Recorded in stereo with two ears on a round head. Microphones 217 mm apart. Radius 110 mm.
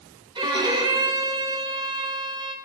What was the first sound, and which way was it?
A violin, 20° right (ahead or behind).